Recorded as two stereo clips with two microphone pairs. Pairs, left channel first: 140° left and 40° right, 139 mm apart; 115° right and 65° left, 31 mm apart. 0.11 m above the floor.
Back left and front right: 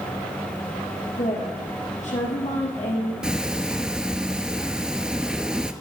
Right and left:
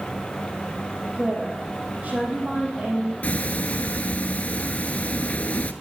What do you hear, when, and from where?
1.1 s a woman speaking: 110° left, 4 m
3.2 s ticking: 120° right, 0.5 m